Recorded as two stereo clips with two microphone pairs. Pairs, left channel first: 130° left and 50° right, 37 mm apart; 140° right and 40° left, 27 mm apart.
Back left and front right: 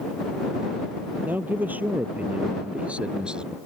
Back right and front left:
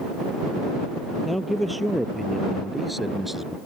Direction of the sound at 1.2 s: 50° right.